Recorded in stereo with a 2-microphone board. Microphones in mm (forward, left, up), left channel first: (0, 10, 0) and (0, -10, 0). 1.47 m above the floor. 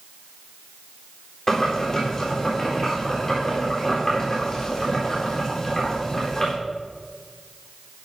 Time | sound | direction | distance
1.5 | boiling | 25° left (ahead or behind) | 4 m